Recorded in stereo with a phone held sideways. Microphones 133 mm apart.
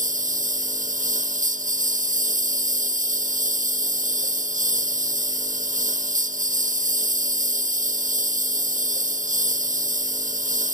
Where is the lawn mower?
75° right (ahead or behind).